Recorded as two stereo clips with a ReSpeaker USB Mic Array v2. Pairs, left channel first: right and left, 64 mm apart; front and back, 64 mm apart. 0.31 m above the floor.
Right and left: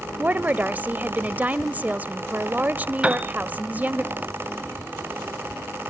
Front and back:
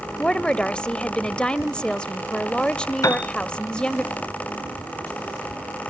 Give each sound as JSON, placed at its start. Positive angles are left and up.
{"t": 0.2, "sound": "a woman speaking", "azimuth_deg": 60, "distance_m": 0.9}
{"t": 3.0, "sound": "a piano", "azimuth_deg": 20, "distance_m": 1.1}